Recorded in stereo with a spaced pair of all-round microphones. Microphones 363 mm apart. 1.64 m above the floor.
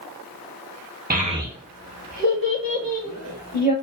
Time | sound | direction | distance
1.1 | a child speaking | 25° right (ahead or behind) | 0.6 m